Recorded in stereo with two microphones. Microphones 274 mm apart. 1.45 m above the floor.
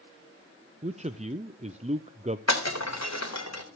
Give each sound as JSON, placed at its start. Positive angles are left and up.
{"t": 0.8, "sound": "a man speaking", "side_deg": -25, "distance_m": 0.6}
{"t": 2.5, "sound": "breaking glass", "side_deg": 70, "distance_m": 3.5}